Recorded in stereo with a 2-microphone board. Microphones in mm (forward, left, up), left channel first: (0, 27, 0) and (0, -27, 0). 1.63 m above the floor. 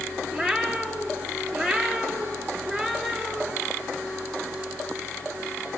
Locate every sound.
0.3 s a cat meowing: centre (ahead or behind), 3.5 m